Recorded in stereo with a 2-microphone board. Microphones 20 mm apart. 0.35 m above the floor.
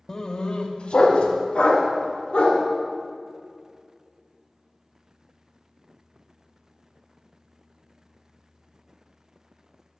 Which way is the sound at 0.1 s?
25° left (ahead or behind).